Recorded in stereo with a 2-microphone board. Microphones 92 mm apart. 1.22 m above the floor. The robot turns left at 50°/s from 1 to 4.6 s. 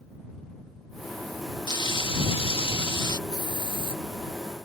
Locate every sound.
1.7 s frying: 130° left; by 3.2 s 50° left
3.3 s a hiss: 135° left; by 4.0 s 100° left